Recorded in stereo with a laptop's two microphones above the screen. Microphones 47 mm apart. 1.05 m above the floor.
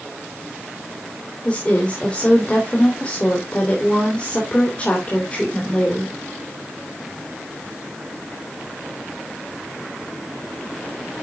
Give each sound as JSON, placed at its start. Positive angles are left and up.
{"t": 1.4, "sound": "a woman speaking", "side_deg": 25, "distance_m": 3.5}